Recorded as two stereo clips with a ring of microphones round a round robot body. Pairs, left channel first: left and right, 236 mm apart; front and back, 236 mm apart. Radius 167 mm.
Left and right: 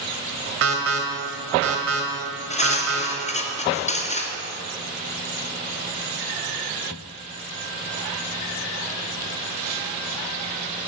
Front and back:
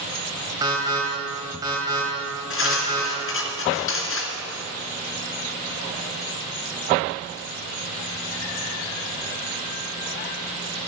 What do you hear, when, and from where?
0.6 s an alarm: 105° right, 1.9 m
2.5 s cutlery clinking: 30° left, 2.5 m